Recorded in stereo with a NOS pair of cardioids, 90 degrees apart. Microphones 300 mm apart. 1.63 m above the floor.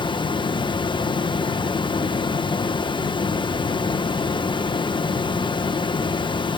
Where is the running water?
15° left, 1.2 m.